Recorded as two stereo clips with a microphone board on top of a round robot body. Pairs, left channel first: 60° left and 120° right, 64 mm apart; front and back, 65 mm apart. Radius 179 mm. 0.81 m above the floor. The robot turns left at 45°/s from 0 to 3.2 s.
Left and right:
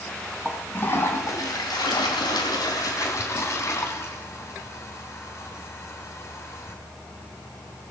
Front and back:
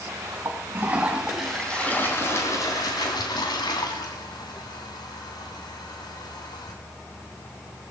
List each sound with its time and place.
0.5 s a toilet flushing: 135° left, 3 m; by 6.8 s 10° left, 3 m